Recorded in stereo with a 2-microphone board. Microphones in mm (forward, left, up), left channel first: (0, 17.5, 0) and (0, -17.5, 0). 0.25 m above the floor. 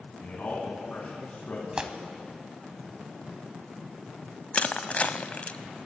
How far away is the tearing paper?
About 0.9 m.